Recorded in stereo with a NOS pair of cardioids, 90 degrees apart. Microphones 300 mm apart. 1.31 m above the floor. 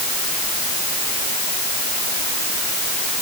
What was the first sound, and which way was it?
Only background noise.